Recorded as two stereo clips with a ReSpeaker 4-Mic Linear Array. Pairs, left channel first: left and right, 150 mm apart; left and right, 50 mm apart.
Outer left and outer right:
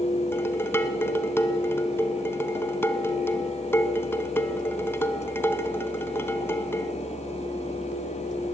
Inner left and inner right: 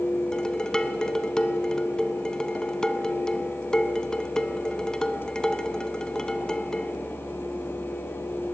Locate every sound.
0.3 s dishes clattering: 15° left (ahead or behind), 0.9 m